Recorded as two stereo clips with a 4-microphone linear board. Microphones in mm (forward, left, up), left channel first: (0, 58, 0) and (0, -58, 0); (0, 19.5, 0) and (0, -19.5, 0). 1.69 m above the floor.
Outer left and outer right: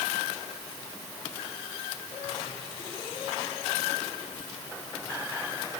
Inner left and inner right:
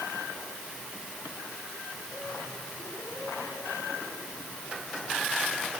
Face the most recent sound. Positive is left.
No sound to turn to.